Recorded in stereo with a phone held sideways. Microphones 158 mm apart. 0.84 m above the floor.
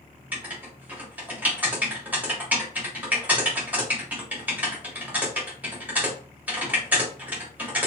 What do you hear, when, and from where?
0.3 s writing: 10° right (ahead or behind), 1.3 m